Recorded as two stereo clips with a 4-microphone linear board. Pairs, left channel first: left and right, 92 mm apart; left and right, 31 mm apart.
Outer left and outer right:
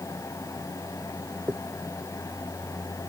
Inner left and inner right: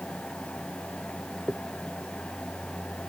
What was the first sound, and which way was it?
A dropped coin, 20° right (ahead or behind).